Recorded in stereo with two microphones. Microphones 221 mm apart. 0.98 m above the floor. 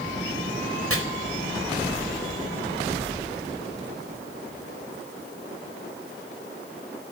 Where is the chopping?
85° right, 4.5 m.